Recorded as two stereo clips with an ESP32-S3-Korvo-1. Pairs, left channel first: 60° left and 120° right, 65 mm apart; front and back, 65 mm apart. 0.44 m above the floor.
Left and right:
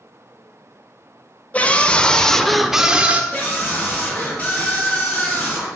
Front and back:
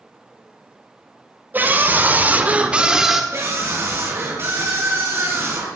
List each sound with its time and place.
1.5 s a scream: 125° left, 2.5 m; by 3.2 s 100° right, 1.4 m
3.3 s a scream: 140° left, 4.5 m